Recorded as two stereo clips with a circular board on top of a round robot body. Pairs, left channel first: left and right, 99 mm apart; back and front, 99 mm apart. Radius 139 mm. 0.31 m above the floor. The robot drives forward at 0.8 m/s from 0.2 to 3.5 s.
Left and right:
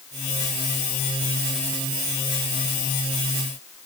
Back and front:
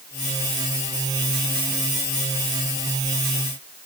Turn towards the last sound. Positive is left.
No sound to turn to.